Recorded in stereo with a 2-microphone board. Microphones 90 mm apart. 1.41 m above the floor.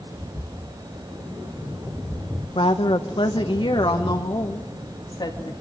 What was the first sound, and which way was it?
A woman speaking, 75° left (ahead or behind).